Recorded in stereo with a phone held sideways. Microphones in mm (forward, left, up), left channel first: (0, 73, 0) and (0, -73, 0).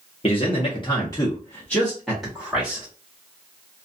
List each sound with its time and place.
0.2 s a man speaking: 40° left (ahead or behind), 0.9 m; by 2.9 s 10° right (ahead or behind), 1.3 m